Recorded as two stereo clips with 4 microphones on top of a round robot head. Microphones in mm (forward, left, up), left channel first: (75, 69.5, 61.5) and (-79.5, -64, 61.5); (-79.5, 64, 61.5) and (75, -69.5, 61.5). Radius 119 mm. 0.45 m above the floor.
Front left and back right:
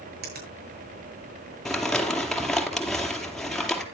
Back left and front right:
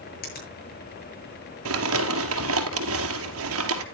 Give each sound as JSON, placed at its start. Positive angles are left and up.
{"t": 0.2, "sound": "a finger snap", "azimuth_deg": 180, "distance_m": 8.0}
{"t": 1.6, "sound": "crumpling", "azimuth_deg": -45, "distance_m": 2.0}